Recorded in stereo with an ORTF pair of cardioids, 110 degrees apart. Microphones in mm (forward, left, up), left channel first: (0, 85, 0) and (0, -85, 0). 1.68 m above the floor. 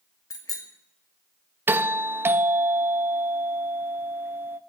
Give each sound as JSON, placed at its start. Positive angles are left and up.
{"t": 0.3, "sound": "a bicycle bell", "azimuth_deg": 20, "distance_m": 2.5}
{"t": 1.7, "sound": "a doorbell", "azimuth_deg": -15, "distance_m": 0.7}